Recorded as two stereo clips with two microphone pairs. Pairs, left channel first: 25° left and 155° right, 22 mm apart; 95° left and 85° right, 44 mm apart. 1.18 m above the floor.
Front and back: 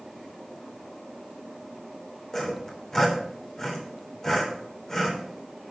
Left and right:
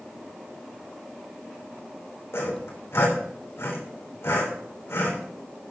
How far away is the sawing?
About 3.5 m.